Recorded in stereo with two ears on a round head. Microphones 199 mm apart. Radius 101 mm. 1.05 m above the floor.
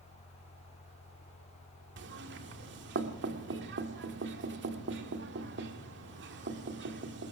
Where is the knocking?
55° right (ahead or behind), 1.9 m.